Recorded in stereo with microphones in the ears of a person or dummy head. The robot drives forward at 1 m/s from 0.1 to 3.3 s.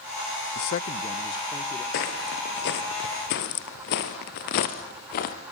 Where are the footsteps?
55° left (ahead or behind), 2.5 m.